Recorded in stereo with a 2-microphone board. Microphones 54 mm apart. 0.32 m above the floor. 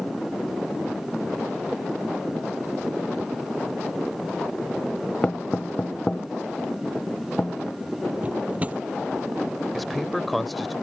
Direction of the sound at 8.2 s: 25° right (ahead or behind).